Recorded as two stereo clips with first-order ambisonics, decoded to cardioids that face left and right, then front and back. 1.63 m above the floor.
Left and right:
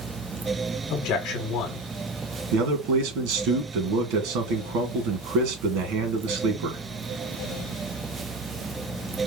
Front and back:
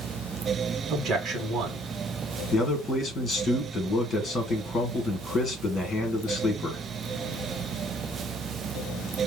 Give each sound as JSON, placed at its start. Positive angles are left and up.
{"t": 0.9, "sound": "a man speaking", "azimuth_deg": 115, "distance_m": 1.1}
{"t": 2.5, "sound": "a man speaking", "azimuth_deg": -75, "distance_m": 1.7}